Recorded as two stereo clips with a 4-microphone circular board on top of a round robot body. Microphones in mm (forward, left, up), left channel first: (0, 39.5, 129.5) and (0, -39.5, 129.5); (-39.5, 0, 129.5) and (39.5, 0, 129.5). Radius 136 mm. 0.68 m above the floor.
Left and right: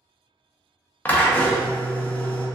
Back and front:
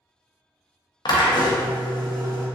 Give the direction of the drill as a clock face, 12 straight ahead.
7 o'clock.